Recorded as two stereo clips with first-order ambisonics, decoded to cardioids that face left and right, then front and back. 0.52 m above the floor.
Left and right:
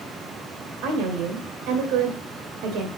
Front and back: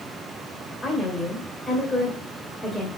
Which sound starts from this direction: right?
A woman speaking, at 0.8 s.